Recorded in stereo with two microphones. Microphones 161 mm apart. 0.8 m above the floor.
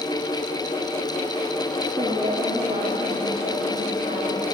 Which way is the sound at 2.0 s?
35° right (ahead or behind).